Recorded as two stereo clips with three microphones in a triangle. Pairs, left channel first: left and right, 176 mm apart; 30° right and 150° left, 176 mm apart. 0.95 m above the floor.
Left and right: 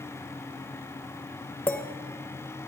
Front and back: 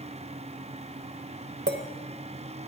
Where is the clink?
170° left, 0.9 m.